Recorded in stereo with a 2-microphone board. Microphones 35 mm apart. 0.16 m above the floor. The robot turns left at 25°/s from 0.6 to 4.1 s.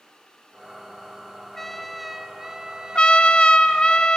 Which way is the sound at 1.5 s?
10° left.